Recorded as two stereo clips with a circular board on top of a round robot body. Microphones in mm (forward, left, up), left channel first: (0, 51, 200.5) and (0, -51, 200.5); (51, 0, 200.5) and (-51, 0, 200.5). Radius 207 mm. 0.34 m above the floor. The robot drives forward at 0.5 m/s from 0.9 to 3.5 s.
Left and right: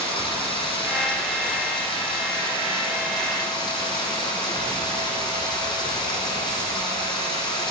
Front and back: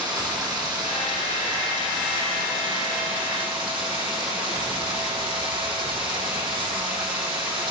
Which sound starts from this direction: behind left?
Running water, at 0.0 s.